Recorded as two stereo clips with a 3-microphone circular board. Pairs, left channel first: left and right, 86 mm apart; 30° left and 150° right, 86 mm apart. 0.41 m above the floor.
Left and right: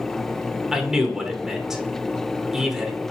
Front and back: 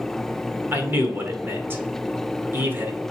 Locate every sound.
0.7 s a man speaking: 170° right, 0.8 m